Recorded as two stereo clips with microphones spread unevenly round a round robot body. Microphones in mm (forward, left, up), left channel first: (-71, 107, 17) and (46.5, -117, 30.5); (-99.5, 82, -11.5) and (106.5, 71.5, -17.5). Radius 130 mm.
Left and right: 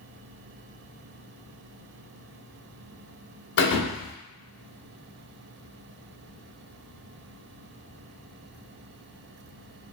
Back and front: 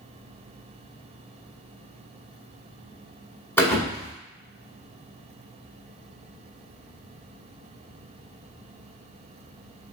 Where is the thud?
110° left, 0.9 m.